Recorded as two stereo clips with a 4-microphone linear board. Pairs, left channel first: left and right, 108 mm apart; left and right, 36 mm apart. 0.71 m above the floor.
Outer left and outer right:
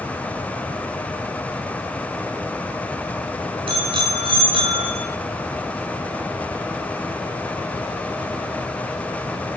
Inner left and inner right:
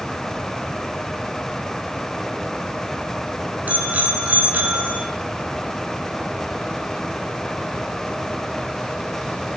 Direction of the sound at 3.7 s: 50° right (ahead or behind).